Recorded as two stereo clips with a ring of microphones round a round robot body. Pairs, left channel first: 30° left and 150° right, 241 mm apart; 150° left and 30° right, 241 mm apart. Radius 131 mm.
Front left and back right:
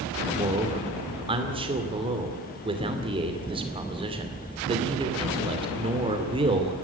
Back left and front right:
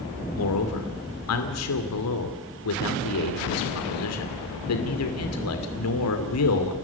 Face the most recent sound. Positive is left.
turn(degrees=140)